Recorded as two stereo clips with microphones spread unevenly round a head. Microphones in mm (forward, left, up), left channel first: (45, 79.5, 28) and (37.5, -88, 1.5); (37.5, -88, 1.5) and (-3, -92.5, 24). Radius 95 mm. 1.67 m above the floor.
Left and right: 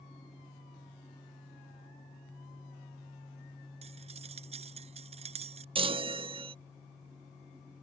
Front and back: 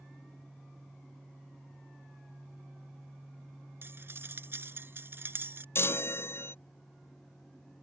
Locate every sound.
3.8 s cutlery clinking: 155° right
5.8 s a chime: 30° right